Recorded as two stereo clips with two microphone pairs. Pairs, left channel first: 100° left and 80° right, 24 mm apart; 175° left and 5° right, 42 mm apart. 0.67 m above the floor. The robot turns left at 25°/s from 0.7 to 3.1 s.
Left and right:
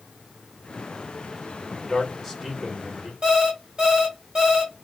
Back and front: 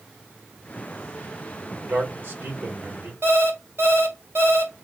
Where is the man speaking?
10° left, 1.8 m; by 3.1 s 20° right, 1.8 m.